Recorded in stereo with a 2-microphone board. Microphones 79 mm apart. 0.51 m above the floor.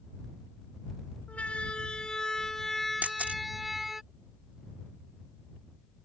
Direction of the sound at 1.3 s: 15° left (ahead or behind).